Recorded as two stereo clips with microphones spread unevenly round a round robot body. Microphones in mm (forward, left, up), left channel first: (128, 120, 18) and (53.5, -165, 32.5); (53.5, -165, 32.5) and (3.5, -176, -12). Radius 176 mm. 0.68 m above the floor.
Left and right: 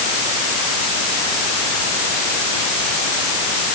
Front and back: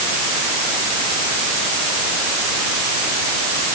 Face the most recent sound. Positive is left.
No sound to turn to.